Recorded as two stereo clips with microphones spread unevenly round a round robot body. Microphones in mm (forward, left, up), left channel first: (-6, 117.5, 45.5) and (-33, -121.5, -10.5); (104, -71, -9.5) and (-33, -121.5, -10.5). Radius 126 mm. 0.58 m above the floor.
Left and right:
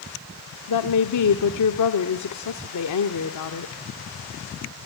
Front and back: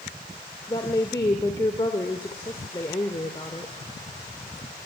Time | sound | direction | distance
0.7 | a woman speaking | 90° left | 1.4 m